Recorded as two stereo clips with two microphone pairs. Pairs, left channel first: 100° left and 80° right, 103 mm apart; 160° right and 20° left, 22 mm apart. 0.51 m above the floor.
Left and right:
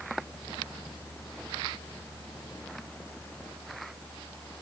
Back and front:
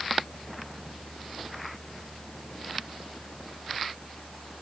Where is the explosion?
No explosion in this recording.